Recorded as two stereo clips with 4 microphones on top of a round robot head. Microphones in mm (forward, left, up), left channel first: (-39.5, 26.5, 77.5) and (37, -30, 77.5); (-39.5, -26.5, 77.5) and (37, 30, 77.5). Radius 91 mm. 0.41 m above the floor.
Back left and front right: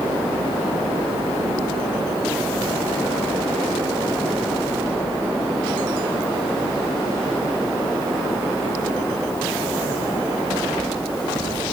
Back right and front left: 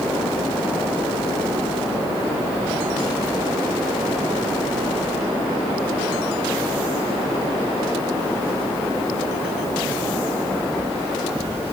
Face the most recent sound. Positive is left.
No sound to turn to.